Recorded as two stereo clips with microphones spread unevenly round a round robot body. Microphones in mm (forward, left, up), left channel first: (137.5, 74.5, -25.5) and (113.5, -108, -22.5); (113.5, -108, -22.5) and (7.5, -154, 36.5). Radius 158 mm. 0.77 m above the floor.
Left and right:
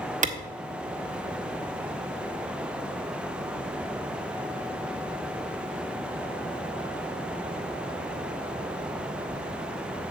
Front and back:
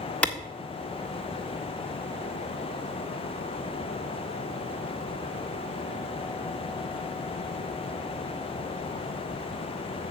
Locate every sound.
0.2 s a clap: 50° right, 1.5 m